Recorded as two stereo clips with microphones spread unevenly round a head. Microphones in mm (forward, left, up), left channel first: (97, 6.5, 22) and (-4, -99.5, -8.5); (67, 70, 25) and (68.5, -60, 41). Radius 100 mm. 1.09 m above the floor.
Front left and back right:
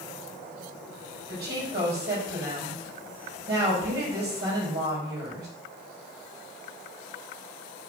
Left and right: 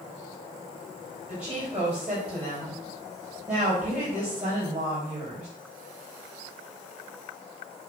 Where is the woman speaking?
170° right, 4 m.